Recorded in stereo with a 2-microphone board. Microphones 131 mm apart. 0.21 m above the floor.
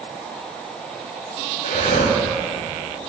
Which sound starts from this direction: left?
Breathing, at 1.6 s.